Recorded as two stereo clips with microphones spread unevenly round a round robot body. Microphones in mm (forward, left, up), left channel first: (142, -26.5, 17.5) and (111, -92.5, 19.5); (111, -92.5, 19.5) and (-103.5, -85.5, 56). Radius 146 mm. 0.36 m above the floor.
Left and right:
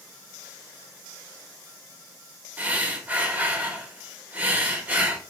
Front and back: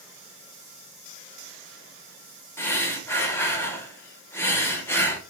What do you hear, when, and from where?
2.6 s breathing: 60° right, 1.0 m